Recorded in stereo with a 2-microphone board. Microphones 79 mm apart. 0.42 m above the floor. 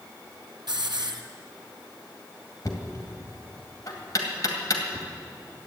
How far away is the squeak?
No squeak in this recording.